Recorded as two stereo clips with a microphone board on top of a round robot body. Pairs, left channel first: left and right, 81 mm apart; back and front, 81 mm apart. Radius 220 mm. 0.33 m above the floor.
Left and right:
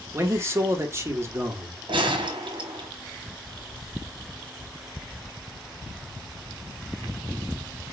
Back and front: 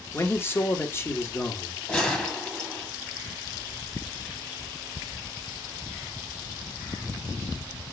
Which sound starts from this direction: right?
A gunshot, at 1.9 s.